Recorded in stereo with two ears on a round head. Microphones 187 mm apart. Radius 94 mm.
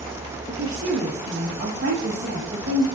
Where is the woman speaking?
65° right (ahead or behind), 1.8 m.